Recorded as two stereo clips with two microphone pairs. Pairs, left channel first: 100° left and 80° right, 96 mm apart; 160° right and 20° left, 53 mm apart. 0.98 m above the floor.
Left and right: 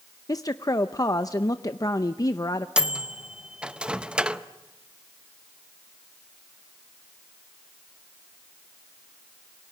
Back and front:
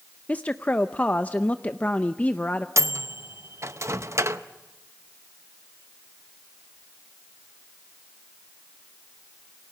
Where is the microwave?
Straight ahead, 0.8 m.